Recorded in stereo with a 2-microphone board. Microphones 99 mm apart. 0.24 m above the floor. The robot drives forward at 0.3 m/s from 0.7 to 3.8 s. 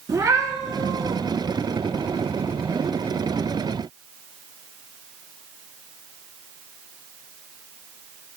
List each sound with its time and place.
0.1 s a cat meowing: 35° right (ahead or behind), 0.8 m; by 1.2 s 40° right (ahead or behind), 0.7 m